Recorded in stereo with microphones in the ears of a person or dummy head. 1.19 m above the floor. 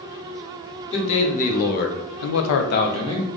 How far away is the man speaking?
About 1.4 m.